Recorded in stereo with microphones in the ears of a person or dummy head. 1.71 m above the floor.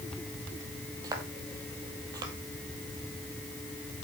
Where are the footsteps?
30° right (ahead or behind), 2.5 m.